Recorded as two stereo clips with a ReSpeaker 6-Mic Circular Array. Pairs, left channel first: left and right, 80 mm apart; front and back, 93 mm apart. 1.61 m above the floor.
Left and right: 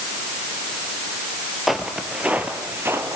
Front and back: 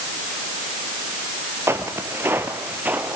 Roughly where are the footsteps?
Behind.